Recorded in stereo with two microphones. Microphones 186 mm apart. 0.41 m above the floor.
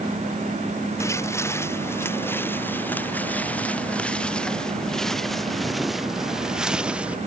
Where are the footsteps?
15° left (ahead or behind); by 7.2 s 5° right (ahead or behind).